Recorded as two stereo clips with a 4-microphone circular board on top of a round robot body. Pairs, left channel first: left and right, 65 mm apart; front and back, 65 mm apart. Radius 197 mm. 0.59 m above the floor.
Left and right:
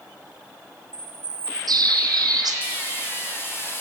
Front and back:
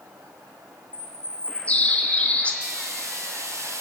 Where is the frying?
140° left, 3 m.